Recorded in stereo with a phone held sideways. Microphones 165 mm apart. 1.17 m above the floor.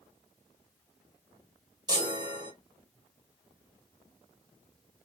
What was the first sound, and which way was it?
A chime, 25° right (ahead or behind).